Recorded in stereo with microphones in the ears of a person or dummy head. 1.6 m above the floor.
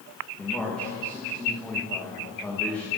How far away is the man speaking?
About 1.3 m.